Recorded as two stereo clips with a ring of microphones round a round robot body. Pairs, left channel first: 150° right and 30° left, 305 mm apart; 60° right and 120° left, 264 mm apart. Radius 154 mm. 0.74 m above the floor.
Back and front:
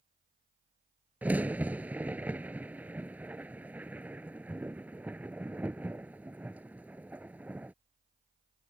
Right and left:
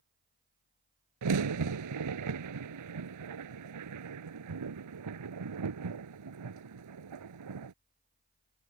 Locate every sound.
1.2 s a crack: 115° left